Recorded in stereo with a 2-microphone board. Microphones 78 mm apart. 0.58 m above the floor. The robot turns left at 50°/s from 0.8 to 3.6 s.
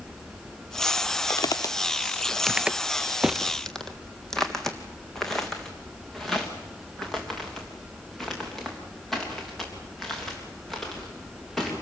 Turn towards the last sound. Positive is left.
turn(degrees=5)  # may be behind; listen again after turning